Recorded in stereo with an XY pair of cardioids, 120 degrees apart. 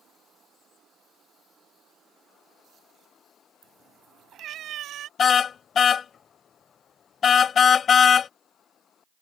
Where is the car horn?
45° left.